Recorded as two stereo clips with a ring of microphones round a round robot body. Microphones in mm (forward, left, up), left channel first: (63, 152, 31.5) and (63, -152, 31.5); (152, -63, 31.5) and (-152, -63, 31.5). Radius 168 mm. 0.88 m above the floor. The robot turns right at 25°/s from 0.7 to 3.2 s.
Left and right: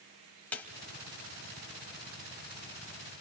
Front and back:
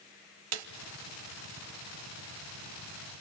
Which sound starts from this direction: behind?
A snare drum, at 0.5 s.